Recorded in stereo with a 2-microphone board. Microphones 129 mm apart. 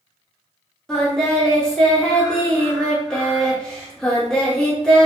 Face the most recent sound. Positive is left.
turn(degrees=5)  # may be behind; listen again after turning